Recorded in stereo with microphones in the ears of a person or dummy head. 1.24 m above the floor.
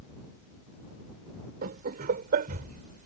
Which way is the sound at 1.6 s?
55° right (ahead or behind).